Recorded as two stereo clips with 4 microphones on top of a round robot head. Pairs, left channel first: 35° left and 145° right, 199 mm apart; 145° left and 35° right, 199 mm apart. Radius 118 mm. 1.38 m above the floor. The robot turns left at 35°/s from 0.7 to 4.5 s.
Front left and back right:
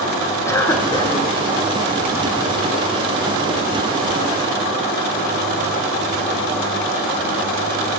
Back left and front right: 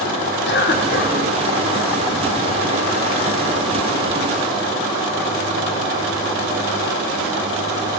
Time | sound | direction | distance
0.5 | a cough | 110° left | 1.5 m